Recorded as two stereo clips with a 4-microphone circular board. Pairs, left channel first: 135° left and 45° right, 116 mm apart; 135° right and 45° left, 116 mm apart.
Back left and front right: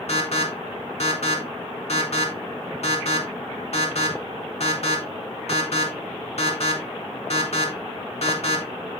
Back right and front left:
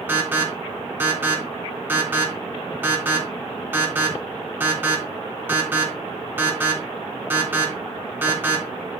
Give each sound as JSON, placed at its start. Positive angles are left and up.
{"t": 0.1, "sound": "an alarm", "azimuth_deg": 115, "distance_m": 3.0}